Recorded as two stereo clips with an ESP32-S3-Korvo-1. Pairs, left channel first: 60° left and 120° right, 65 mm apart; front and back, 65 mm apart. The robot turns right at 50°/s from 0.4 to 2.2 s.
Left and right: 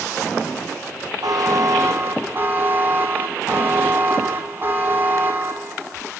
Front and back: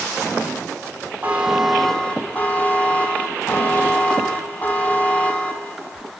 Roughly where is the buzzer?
Behind right.